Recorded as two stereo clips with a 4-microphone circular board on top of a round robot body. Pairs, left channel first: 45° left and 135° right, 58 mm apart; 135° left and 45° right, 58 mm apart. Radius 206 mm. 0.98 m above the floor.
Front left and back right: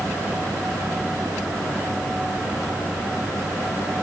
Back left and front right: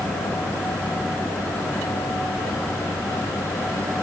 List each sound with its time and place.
Only background noise.